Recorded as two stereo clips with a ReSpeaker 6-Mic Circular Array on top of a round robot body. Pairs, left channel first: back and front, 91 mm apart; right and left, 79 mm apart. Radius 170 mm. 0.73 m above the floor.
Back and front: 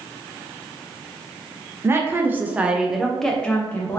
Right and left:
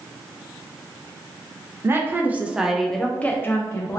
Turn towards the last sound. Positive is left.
turn(degrees=-120)